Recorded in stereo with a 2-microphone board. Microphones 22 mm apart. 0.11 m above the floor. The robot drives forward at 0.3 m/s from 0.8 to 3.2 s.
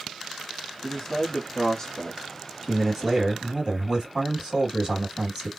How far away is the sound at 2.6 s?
About 2 m.